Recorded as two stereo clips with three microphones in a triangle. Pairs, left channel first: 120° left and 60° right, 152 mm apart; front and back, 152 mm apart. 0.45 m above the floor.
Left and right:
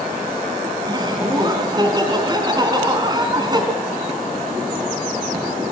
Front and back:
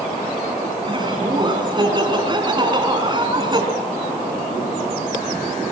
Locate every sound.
0.8 s laughter: 120° right, 5 m